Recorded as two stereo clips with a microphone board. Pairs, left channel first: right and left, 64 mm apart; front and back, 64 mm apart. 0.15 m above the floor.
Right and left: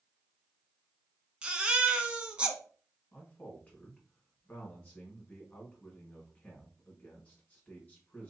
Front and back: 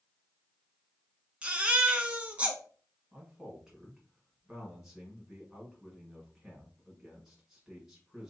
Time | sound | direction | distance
1.4 | a baby crying | 135° left | 0.7 m
3.1 | a man speaking | 105° right | 1.5 m